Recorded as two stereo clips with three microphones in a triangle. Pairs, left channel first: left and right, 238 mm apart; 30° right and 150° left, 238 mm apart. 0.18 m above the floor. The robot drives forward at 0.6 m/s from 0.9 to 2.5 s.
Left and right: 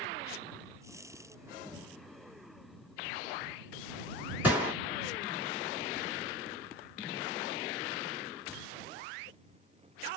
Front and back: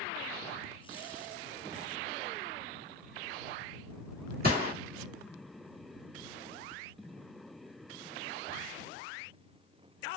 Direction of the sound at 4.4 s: 170° right.